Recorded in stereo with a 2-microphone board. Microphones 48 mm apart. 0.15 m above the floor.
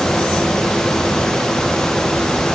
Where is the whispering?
I don't hear whispering.